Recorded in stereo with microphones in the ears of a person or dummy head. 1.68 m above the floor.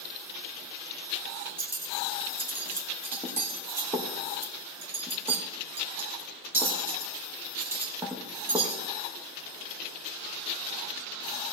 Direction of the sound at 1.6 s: 20° right (ahead or behind).